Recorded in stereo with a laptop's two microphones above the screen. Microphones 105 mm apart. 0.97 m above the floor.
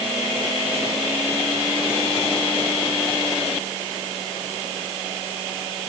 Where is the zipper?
No zipper in this recording.